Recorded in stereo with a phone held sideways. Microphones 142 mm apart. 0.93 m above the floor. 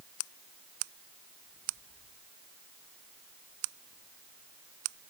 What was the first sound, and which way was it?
Only background noise.